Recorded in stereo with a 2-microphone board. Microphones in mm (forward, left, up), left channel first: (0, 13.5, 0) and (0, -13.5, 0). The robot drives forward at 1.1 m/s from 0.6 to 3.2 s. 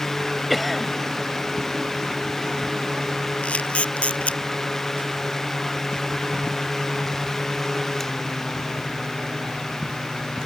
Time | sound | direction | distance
0.5 | a cough | centre (ahead or behind) | ?
3.4 | a camera shutter | 50° left (ahead or behind) | ?